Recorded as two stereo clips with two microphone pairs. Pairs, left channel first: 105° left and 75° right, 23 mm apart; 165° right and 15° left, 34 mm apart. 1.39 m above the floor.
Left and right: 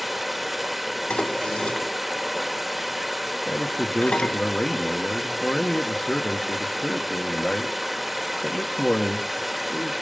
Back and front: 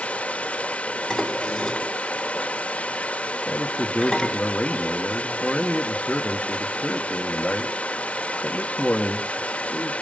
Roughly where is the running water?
Behind right.